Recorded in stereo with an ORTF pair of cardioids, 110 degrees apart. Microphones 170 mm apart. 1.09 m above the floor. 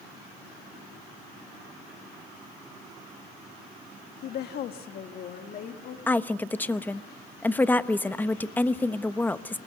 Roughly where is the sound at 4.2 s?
Left.